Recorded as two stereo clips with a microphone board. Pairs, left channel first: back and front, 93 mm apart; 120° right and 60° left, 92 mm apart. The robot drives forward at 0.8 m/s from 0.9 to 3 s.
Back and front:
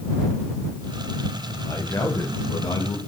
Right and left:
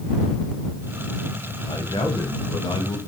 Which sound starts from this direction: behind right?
A man speaking, at 1.6 s.